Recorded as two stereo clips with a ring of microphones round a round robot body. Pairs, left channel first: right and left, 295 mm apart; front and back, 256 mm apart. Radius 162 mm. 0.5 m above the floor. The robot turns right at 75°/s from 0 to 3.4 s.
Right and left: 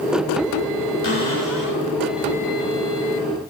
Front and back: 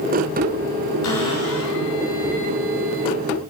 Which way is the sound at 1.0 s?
30° right.